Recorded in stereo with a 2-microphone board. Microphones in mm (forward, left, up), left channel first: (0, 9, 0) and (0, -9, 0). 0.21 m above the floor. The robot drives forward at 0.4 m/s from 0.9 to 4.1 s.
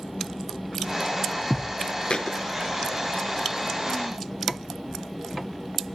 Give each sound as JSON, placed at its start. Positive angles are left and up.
{"t": 2.1, "sound": "a thud", "side_deg": 65, "distance_m": 0.6}